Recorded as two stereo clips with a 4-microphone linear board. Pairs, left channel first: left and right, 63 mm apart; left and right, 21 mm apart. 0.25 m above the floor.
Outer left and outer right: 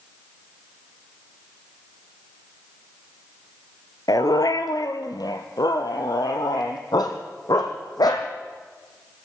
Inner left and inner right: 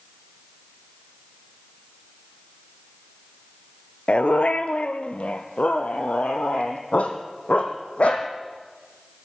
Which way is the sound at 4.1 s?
75° left (ahead or behind).